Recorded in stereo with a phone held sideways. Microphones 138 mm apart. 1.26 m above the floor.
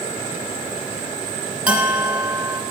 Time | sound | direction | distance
1.7 | a bell | 10° right (ahead or behind) | 3.5 m